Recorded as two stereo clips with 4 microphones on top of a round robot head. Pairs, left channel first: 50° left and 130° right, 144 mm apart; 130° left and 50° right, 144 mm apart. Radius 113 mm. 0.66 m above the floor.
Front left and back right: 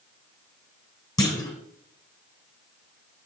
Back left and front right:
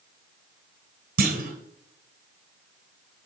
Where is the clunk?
20° right, 1.1 m.